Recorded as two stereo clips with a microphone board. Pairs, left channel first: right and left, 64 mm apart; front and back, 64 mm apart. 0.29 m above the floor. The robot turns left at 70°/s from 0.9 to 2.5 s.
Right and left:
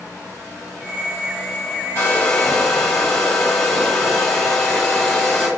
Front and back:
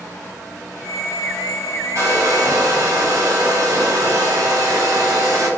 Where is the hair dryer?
140° right, 1.6 m; by 5.5 s straight behind, 1.6 m.